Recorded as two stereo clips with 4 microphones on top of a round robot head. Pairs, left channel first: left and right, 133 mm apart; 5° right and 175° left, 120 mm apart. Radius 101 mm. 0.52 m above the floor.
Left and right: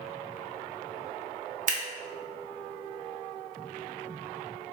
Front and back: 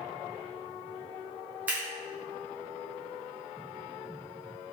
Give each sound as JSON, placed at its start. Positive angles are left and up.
{"t": 1.7, "sound": "scissors", "azimuth_deg": -110, "distance_m": 0.5}